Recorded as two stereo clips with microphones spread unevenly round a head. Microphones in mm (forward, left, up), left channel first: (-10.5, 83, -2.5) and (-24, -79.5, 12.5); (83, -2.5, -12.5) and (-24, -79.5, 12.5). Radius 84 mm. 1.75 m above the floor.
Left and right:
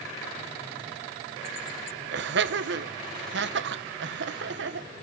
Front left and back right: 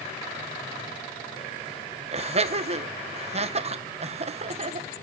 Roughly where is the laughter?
Right.